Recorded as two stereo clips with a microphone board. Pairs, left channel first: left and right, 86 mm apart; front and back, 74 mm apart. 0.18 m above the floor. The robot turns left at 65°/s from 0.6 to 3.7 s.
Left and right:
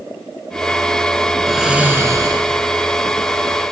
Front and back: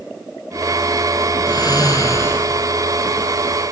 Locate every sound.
1.5 s snoring: 5° left, 1.1 m; by 2.5 s 60° right, 1.1 m